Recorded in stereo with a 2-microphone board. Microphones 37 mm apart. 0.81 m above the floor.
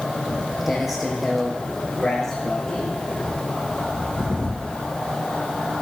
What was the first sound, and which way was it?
Footsteps, 10° right (ahead or behind).